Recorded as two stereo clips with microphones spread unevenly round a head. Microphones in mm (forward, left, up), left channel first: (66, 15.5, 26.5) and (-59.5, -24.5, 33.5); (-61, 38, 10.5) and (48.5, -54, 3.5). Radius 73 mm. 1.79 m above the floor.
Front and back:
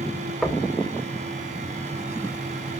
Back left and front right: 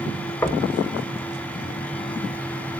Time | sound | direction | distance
0.4 | knocking | 115° left | 0.8 m